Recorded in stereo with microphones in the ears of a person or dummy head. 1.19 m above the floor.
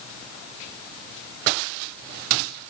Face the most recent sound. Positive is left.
No sound to turn to.